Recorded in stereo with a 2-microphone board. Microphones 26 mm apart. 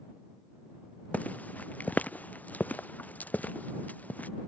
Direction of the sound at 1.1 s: 70° left (ahead or behind).